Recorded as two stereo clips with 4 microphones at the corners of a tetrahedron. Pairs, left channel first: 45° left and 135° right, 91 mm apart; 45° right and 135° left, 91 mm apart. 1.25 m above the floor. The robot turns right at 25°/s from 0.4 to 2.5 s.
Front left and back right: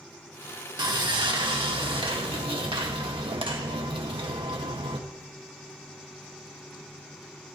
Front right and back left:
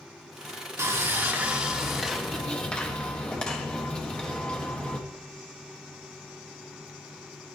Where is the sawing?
165° right, 1.7 m; by 5.0 s 125° right, 1.7 m.